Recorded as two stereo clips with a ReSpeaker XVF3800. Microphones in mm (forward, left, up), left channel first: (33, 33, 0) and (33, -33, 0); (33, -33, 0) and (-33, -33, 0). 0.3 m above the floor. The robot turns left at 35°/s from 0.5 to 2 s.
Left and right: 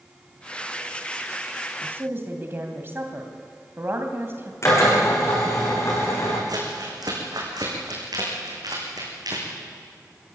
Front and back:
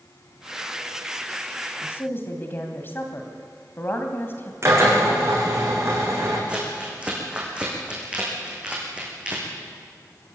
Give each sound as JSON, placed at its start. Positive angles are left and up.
{"t": 1.8, "sound": "a woman speaking", "azimuth_deg": -40, "distance_m": 2.0}
{"t": 4.6, "sound": "a drill", "azimuth_deg": 135, "distance_m": 7.0}
{"t": 6.5, "sound": "crumpling", "azimuth_deg": -105, "distance_m": 6.0}